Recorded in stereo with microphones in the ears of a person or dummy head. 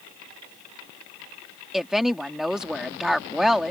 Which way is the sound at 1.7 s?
5° right (ahead or behind).